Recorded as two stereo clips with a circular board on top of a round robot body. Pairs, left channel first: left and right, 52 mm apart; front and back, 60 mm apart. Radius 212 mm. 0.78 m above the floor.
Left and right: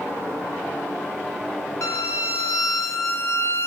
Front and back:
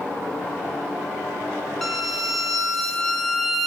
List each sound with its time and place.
1.8 s a violin: 85° left, 1.8 m